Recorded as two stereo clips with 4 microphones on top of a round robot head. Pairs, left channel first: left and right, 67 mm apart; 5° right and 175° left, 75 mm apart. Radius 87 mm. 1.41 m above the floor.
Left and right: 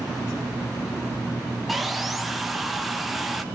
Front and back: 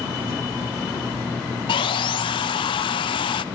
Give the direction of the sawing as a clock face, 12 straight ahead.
12 o'clock.